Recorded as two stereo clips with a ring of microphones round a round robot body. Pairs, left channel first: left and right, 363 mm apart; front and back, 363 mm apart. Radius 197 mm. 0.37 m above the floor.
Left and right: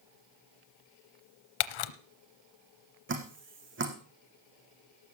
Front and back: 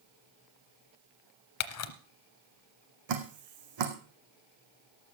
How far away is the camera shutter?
About 0.8 m.